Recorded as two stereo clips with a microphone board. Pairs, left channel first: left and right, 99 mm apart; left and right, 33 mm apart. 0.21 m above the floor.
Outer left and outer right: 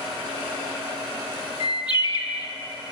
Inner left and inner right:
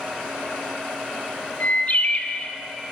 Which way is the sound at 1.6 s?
55° left (ahead or behind).